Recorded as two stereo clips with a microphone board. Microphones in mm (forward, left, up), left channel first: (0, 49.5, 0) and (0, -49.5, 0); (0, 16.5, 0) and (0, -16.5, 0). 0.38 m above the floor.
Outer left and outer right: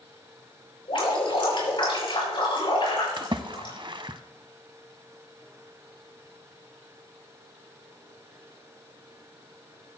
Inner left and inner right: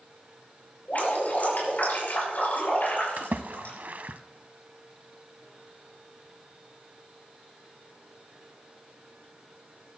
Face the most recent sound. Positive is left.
turn(degrees=-55)  # may be behind; listen again after turning